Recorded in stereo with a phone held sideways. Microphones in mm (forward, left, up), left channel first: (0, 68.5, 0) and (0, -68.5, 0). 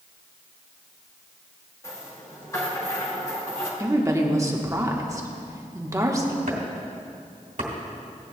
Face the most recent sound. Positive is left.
turn(degrees=-70)  # may be behind; listen again after turning